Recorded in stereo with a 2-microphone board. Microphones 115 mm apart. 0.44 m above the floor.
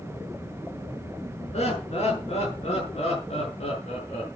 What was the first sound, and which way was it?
Laughter, 75° left (ahead or behind).